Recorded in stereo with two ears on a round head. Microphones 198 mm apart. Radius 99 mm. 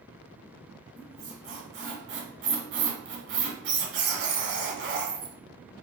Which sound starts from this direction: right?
A squeak, at 1.0 s.